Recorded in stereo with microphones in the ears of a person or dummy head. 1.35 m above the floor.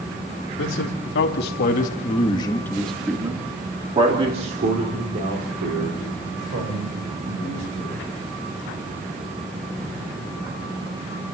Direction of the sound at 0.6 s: 70° left (ahead or behind).